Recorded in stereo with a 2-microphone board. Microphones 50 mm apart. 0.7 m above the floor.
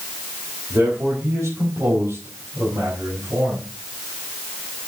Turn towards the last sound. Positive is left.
turn(degrees=-70)  # may be behind; listen again after turning